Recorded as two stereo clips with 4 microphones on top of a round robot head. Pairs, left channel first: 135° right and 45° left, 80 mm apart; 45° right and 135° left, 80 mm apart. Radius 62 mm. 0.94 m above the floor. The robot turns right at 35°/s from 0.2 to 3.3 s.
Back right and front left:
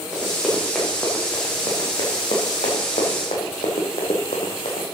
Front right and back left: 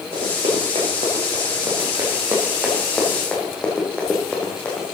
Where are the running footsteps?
120° left, 4.5 m; by 4.8 s 115° right, 2.5 m.